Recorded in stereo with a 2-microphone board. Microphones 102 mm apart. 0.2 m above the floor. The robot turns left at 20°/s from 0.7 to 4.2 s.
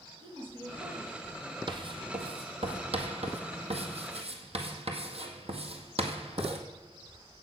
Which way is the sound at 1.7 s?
50° right (ahead or behind).